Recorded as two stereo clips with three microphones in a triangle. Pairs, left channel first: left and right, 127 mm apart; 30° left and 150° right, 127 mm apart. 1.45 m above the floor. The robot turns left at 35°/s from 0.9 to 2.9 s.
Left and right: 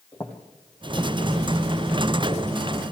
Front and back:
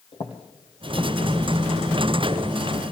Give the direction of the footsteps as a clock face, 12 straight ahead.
11 o'clock.